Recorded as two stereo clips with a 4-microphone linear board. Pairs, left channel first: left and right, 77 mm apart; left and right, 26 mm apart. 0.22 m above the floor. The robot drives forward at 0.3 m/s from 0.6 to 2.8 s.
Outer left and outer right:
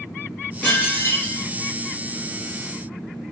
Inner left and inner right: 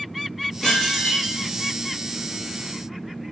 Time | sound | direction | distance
0.6 | dishes clattering | 20° left (ahead or behind) | 1.3 m